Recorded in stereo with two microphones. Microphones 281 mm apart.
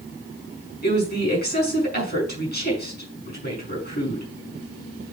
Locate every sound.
0.8 s a woman speaking: 35° left (ahead or behind), 6 m